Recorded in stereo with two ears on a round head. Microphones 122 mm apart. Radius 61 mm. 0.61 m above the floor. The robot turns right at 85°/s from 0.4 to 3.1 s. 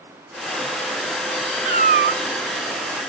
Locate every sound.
1.6 s a cat meowing: 125° right; by 2.2 s 75° right